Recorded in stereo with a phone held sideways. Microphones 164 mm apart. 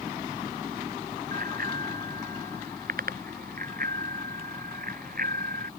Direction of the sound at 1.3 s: 65° right (ahead or behind).